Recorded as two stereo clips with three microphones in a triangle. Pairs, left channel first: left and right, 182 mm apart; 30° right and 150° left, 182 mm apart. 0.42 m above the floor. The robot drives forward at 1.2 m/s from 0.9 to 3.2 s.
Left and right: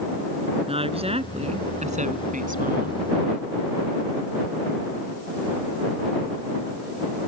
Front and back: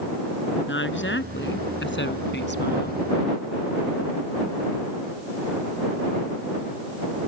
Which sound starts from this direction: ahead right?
A woman speaking, at 0.7 s.